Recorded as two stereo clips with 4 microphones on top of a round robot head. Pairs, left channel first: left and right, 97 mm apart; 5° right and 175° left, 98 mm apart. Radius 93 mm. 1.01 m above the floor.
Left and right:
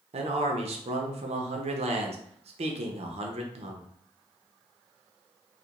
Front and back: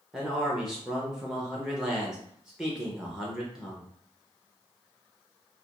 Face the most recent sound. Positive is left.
turn(degrees=-100)